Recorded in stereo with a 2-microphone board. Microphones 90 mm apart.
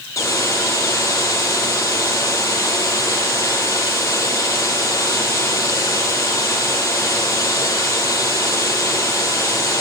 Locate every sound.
0.2 s a hiss: 35° left (ahead or behind), 7.5 m